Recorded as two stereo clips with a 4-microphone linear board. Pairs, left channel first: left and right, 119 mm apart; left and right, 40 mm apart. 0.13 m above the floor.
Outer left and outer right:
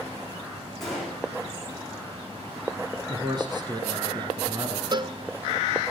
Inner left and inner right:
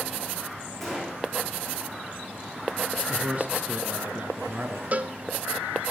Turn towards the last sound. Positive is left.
turn(degrees=-40)  # may be behind; listen again after turning